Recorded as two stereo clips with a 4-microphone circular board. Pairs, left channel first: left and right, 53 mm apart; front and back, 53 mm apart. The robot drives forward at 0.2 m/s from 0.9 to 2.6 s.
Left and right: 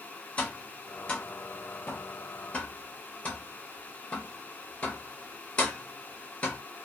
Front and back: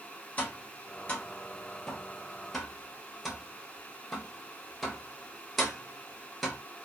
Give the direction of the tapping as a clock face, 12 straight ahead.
11 o'clock.